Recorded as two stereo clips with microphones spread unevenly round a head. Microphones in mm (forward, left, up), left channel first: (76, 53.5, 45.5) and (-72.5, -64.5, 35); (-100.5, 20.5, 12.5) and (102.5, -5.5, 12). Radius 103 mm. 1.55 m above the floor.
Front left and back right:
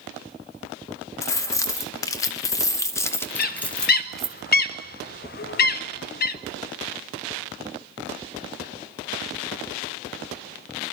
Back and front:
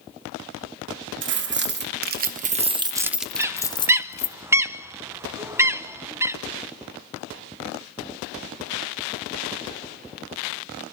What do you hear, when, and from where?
1.2 s keys jangling: 35° right, 1.3 m; by 4.4 s 125° left, 1.0 m
3.4 s a bird: 65° left, 0.7 m